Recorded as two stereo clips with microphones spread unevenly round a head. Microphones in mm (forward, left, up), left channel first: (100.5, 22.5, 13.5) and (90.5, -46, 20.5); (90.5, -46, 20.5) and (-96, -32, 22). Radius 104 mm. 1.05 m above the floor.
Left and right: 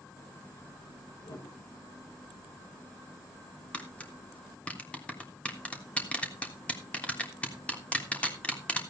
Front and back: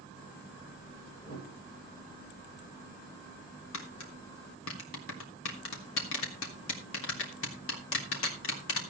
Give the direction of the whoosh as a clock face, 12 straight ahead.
10 o'clock.